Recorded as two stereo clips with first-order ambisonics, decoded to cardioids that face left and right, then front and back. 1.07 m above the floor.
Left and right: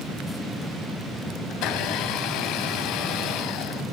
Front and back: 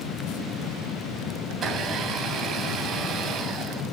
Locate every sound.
1.5 s a blender: 120° left, 2.5 m